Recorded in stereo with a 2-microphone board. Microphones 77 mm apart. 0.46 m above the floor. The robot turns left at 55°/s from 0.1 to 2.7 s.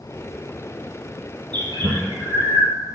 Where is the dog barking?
No dog barking in this recording.